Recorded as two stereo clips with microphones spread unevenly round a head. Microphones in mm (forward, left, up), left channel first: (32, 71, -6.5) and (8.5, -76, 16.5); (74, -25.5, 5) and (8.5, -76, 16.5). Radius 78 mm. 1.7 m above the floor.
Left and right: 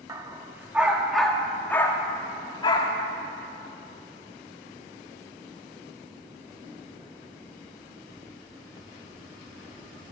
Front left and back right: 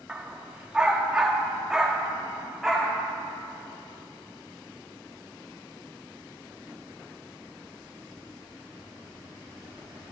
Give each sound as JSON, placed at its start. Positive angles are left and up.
{"t": 0.1, "sound": "a dog barking", "azimuth_deg": -95, "distance_m": 1.3}